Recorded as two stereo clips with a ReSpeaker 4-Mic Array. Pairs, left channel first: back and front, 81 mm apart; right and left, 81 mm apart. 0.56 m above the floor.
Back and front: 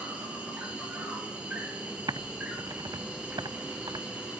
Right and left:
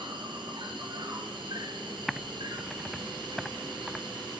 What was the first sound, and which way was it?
An insect, 75° left.